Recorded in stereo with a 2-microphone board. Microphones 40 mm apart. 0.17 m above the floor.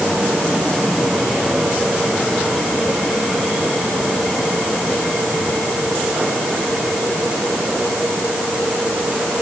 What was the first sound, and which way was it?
Only background noise.